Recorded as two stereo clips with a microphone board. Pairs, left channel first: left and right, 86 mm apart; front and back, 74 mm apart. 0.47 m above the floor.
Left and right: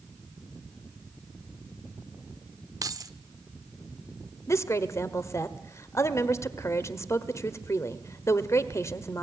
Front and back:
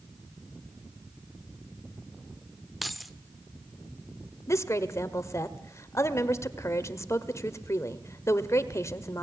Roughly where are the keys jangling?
Right.